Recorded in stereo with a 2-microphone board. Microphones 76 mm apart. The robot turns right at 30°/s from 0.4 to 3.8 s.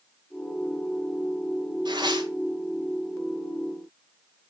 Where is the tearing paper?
90° right, 1.8 m; by 2.3 s 75° right (ahead or behind), 1.8 m.